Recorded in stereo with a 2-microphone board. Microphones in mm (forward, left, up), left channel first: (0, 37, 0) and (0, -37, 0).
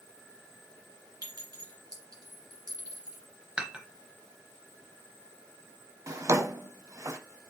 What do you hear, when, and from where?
1.2 s a clink: 65° right (ahead or behind), 1.7 m
3.6 s dishes clattering: 15° right (ahead or behind), 1.0 m
6.1 s a drawer: 45° right (ahead or behind), 0.6 m